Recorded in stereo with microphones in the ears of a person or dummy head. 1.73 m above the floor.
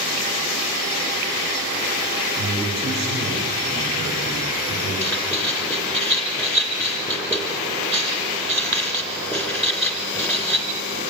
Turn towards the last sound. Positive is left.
turn(degrees=15)  # may be behind; listen again after turning